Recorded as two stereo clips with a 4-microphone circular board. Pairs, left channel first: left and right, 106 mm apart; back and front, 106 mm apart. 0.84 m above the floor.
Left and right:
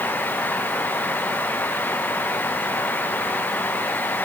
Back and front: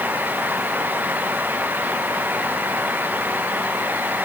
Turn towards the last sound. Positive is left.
No sound to turn to.